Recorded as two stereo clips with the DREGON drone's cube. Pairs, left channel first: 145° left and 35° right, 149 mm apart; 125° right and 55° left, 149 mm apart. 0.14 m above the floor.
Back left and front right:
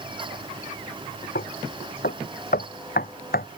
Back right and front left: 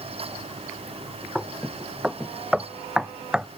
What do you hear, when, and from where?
1.4 s knocking: 140° left